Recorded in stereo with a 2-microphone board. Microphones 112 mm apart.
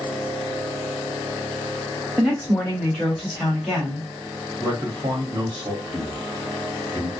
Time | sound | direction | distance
2.2 | a woman speaking | 5° left (ahead or behind) | 1.8 m
4.6 | a man speaking | 45° right (ahead or behind) | 1.4 m